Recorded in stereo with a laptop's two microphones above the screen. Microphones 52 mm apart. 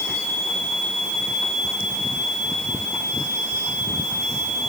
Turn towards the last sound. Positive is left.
No sound to turn to.